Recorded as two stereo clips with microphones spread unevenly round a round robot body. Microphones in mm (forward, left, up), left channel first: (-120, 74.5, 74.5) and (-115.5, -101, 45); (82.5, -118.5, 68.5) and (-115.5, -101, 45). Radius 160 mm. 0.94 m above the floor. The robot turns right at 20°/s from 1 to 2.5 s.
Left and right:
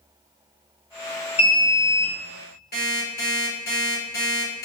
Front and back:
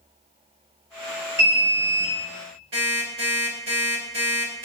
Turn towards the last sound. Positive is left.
turn(degrees=120)